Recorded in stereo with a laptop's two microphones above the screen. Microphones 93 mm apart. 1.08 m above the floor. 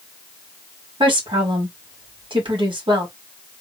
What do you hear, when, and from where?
1.0 s a woman speaking: 75° right (ahead or behind), 1.8 m